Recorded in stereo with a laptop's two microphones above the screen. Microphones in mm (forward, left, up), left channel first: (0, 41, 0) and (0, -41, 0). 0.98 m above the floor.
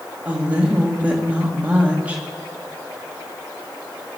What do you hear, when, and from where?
0.2 s a woman speaking: 20° right (ahead or behind), 1.9 m